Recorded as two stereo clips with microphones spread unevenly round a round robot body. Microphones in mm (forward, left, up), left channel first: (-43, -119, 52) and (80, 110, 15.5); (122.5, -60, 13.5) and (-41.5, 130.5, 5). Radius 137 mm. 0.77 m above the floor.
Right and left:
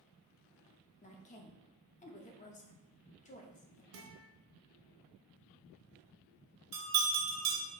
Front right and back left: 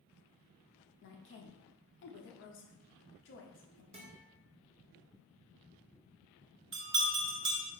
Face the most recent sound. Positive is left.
turn(degrees=95)